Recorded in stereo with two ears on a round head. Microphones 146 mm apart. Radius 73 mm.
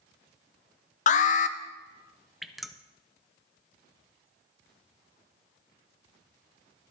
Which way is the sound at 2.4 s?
Centre (ahead or behind).